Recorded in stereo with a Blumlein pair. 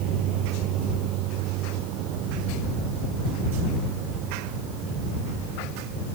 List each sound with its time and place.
0.0 s a vehicle: 40° right